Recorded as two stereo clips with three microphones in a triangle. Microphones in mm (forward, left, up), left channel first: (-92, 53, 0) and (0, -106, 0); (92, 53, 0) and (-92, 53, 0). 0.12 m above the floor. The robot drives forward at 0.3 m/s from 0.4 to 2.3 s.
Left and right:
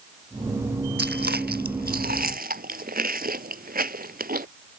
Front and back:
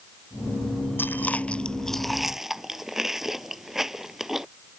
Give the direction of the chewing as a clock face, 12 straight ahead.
3 o'clock.